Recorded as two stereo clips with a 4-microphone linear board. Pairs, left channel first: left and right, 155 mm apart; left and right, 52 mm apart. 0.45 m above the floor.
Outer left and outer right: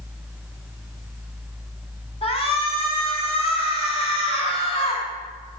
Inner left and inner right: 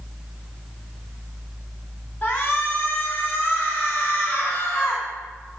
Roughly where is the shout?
Left.